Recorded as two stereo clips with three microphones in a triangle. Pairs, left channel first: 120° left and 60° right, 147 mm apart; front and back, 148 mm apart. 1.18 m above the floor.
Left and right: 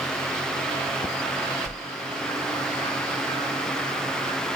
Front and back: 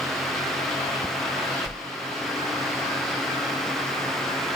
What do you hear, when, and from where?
1.6 s a whoosh: 80° right, 1.5 m